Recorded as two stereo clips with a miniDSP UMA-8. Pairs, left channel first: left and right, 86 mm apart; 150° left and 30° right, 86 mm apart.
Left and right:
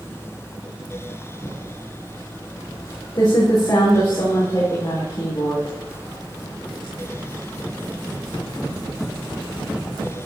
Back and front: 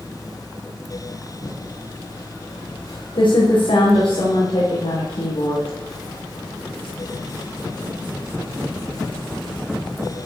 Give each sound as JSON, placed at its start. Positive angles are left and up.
{"t": 1.4, "sound": "typing on a keyboard", "azimuth_deg": 135, "distance_m": 9.0}